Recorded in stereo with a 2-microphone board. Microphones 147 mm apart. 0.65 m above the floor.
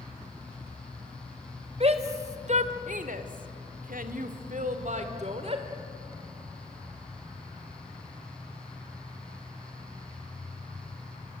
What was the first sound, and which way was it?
A shout, 45° right (ahead or behind).